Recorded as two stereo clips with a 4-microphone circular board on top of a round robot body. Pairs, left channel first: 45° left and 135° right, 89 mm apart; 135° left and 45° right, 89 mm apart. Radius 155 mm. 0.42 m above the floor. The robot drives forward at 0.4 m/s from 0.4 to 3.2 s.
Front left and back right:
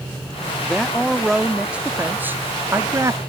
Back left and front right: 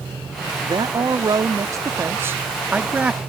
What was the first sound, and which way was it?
A man speaking, 40° right.